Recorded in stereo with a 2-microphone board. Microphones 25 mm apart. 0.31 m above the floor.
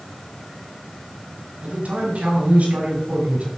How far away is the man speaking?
About 5 m.